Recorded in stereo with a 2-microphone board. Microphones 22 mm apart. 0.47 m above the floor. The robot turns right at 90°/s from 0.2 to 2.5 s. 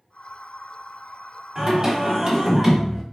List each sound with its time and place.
1.6 s singing: 115° right, 1.2 m; by 3.0 s 30° right, 1.2 m